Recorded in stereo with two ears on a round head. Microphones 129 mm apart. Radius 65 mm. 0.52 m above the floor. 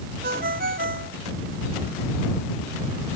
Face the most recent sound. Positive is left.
turn(degrees=-70)  # may be behind; listen again after turning